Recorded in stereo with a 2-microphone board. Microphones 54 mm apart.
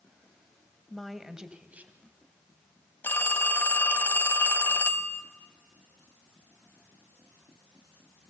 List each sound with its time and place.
0.9 s a woman speaking: 10° left (ahead or behind), 1.6 m; by 2.0 s 35° right (ahead or behind), 2 m
3.0 s a phone ringing: 40° left (ahead or behind), 1.3 m